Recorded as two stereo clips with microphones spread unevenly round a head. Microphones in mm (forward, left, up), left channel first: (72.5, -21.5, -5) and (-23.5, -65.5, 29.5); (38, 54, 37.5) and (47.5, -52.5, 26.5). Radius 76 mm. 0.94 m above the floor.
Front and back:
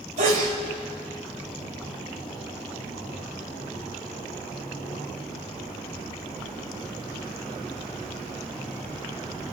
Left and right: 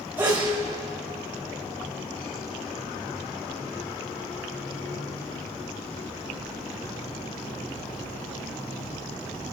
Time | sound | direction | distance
0.2 | a sneeze | 160° right | 4.5 m